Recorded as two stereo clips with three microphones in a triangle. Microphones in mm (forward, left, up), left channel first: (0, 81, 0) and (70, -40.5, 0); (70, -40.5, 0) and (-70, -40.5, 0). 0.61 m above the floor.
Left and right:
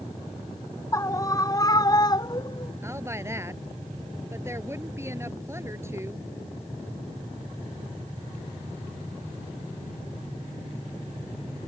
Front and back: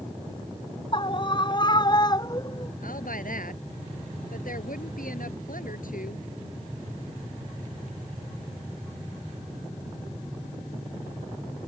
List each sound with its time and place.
0.9 s a scream: 55° left; by 2.7 s 65° left
2.8 s a woman speaking: 10° left